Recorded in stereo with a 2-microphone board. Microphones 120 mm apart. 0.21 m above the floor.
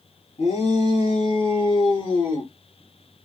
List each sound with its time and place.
0.4 s a shout: 50° left (ahead or behind), 3.5 m; by 2.5 s 40° left (ahead or behind), 4 m